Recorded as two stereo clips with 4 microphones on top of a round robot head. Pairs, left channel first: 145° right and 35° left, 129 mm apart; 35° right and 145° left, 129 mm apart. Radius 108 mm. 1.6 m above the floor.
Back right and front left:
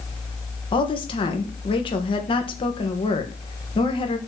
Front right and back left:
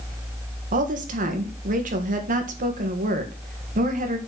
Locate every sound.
0.7 s a woman speaking: 165° left, 1.9 m